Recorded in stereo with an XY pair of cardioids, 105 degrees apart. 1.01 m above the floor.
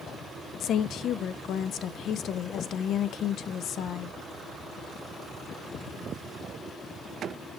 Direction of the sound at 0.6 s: 70° left.